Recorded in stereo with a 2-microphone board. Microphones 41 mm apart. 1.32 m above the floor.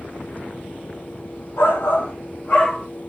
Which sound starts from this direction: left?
A shout, at 1.6 s.